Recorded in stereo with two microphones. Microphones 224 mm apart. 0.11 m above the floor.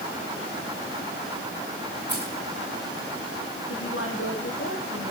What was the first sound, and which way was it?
Keys jangling, 50° left (ahead or behind).